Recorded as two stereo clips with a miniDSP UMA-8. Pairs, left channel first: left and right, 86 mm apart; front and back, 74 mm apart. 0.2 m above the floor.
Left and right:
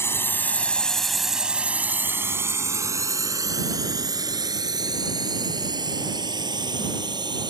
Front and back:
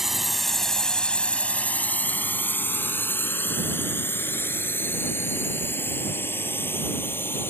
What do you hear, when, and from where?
0.0 s a drone: 100° left; by 7.5 s 60° right